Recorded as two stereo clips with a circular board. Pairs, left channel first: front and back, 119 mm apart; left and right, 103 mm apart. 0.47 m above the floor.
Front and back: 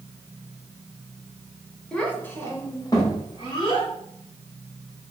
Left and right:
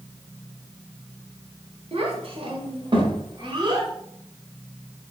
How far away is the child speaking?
About 0.8 m.